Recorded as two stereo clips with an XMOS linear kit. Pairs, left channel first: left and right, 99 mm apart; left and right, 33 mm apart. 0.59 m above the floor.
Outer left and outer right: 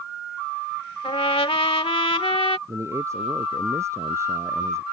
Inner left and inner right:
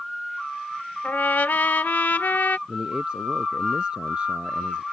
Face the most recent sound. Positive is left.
turn(degrees=-30)  # may be behind; listen again after turning